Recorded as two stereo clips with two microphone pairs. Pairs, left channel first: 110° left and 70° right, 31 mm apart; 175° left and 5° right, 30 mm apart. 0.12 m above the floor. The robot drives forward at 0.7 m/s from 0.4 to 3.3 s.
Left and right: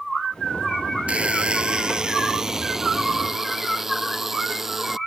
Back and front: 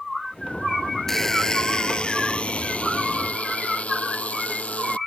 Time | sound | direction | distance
1.1 | a buzzer | 110° right | ?